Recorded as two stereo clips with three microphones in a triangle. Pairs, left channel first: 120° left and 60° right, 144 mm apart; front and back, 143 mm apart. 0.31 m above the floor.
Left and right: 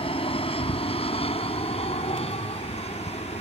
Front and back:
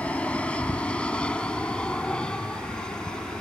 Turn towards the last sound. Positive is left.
turn(degrees=85)